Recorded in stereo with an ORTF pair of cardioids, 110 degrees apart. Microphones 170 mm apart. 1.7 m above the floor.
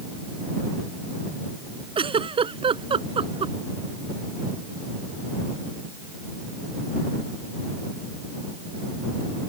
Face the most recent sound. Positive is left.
turn(degrees=-35)